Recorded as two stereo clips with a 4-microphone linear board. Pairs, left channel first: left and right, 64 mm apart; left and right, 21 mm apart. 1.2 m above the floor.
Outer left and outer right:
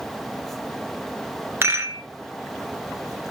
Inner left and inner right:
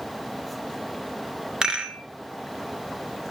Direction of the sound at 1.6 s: 40° right (ahead or behind).